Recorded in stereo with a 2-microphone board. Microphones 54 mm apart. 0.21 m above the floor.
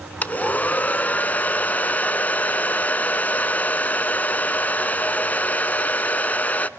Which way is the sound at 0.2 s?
30° left (ahead or behind).